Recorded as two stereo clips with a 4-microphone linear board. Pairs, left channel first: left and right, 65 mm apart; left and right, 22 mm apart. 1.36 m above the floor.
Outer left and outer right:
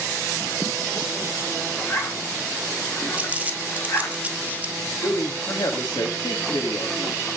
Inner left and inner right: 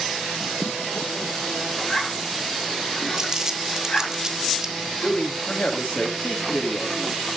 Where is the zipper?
45° left (ahead or behind), 5.5 m.